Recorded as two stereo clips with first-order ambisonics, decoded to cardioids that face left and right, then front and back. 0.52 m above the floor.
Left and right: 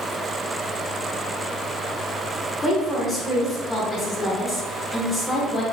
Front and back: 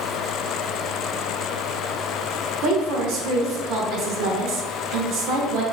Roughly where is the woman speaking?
Behind.